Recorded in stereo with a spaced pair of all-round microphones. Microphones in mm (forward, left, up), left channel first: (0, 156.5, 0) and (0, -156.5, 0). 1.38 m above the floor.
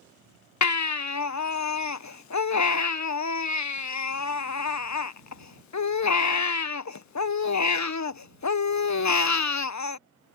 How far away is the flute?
I don't hear a flute.